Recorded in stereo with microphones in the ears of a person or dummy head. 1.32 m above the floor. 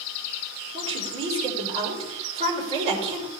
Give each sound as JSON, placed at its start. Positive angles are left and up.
{"t": 0.7, "sound": "a woman speaking", "side_deg": -35, "distance_m": 5.0}